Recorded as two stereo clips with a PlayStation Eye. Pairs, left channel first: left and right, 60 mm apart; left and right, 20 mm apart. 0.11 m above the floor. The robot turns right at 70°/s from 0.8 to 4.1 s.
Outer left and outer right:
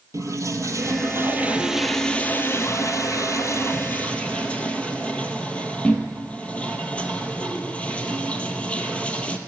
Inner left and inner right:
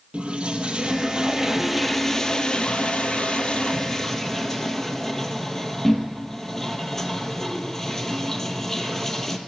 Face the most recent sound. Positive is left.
turn(degrees=155)